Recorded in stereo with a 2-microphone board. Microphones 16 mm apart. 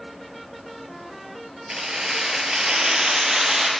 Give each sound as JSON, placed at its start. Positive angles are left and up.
{"t": 1.7, "sound": "keys jangling", "side_deg": -45, "distance_m": 1.8}